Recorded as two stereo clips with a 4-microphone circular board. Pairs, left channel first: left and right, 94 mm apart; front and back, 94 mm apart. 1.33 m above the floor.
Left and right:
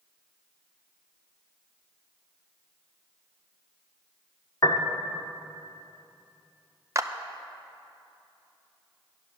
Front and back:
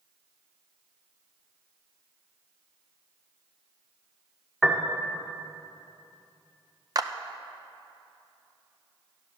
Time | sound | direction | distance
4.6 | a piano | 85° left | 1.1 m
7.0 | a clap | 140° right | 0.6 m